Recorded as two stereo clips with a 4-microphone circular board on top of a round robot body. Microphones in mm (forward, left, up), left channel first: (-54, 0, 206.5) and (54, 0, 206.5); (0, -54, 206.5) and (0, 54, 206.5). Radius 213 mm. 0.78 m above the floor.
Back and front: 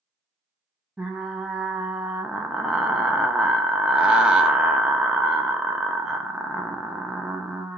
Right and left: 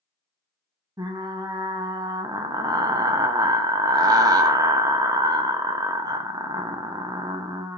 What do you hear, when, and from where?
1.0 s frying: 80° left, 0.9 m